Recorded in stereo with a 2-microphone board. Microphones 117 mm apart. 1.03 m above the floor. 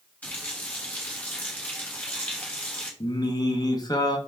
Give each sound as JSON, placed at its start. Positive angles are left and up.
{"t": 0.2, "sound": "a running tap", "side_deg": 15, "distance_m": 1.0}
{"t": 3.0, "sound": "singing", "side_deg": 35, "distance_m": 0.6}